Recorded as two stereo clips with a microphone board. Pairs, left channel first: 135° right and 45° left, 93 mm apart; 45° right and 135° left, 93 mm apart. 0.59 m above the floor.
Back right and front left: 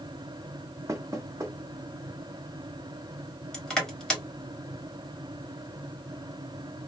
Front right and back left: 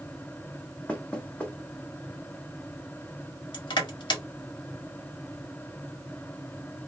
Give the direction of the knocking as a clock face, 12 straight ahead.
11 o'clock.